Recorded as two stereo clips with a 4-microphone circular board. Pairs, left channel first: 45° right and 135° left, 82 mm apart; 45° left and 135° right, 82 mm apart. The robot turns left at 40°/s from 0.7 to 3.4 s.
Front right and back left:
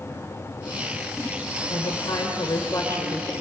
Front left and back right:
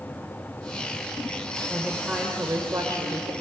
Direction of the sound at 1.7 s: 45° right.